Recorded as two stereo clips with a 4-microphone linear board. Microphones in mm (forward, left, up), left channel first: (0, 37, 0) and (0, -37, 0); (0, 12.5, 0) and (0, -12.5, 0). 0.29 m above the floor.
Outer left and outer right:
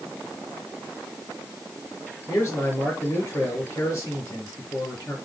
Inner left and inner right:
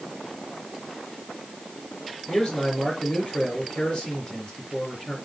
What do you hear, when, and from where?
2.3 s a man speaking: 30° left (ahead or behind), 4 m